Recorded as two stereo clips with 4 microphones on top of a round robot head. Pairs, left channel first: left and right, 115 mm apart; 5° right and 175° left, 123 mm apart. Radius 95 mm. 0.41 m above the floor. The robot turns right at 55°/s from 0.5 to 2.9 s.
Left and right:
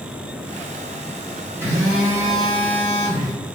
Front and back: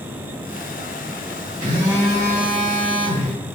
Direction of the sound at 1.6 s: 145° right.